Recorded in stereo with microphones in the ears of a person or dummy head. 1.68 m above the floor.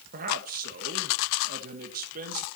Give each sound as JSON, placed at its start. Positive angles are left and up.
{"t": 0.1, "sound": "a man speaking", "side_deg": -50, "distance_m": 1.8}